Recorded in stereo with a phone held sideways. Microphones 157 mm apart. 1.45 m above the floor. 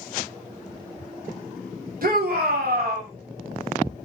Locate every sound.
2.0 s a shout: 65° right (ahead or behind), 0.9 m; by 3.1 s 70° right (ahead or behind), 1.0 m